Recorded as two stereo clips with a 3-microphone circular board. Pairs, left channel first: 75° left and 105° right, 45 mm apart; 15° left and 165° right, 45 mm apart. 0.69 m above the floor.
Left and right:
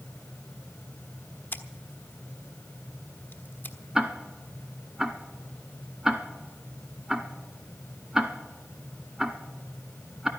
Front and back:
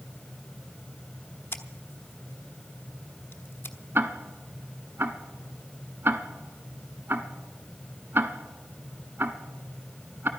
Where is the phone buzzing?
I don't hear a phone buzzing.